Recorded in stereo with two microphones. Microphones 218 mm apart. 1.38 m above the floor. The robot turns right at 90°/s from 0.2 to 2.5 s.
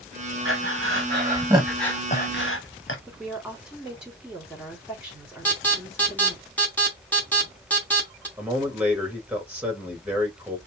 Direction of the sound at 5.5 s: 5° left (ahead or behind).